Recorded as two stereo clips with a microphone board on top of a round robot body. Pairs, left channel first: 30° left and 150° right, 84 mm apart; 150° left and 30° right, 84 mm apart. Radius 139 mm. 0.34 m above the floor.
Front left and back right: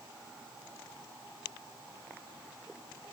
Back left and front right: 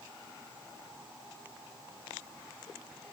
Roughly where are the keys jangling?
I don't hear keys jangling.